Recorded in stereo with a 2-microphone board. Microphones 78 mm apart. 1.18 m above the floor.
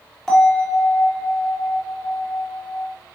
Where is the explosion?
No explosion in this recording.